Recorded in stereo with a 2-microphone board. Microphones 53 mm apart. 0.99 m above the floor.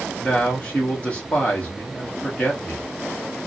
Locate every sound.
0.2 s a man speaking: 20° left (ahead or behind), 1.3 m